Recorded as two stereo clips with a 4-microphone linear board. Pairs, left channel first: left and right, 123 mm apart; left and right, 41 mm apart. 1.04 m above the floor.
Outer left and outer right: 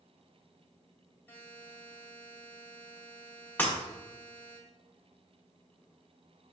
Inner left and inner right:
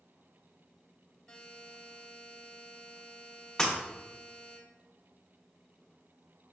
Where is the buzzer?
15° left (ahead or behind), 1.5 m.